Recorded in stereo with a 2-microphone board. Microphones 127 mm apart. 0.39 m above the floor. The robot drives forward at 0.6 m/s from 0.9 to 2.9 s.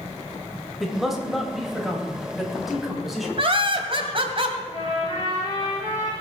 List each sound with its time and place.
0.8 s a man speaking: centre (ahead or behind), 2 m
3.4 s laughter: 50° right (ahead or behind), 1.8 m
4.7 s a trumpet: 35° left (ahead or behind), 6.5 m